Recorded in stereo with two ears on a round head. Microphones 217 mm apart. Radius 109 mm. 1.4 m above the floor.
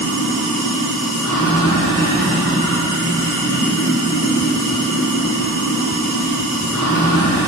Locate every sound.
0.0 s running water: 70° left (ahead or behind), 2.5 m